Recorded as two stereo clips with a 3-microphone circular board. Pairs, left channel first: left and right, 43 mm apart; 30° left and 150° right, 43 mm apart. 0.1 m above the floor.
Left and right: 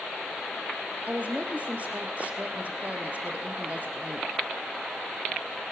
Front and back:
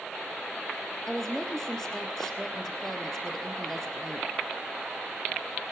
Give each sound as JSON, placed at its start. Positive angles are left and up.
{"t": 1.1, "sound": "a woman speaking", "azimuth_deg": -50, "distance_m": 1.7}